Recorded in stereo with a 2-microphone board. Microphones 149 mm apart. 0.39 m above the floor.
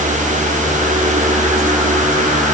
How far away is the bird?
No bird in this recording.